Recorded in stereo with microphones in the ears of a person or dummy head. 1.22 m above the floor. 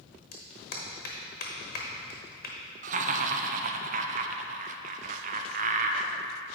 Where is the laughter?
35° right (ahead or behind), 0.7 m.